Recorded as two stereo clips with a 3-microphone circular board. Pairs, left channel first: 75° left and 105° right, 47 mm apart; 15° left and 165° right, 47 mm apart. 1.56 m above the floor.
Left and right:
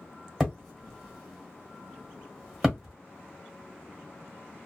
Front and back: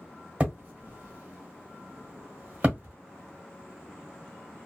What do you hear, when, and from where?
0.4 s hammering: 155° left, 1.5 m